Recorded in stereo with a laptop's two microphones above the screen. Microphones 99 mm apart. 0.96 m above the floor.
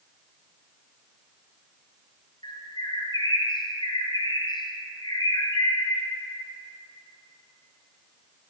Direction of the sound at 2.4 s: 45° left (ahead or behind).